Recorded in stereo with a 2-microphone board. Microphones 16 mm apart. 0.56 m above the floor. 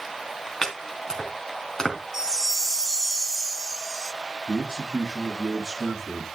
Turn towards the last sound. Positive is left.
turn(degrees=-30)  # may be behind; listen again after turning